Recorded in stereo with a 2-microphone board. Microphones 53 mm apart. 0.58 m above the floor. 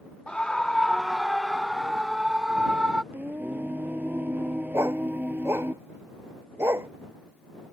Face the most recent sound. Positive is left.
turn(degrees=-55)  # may be behind; listen again after turning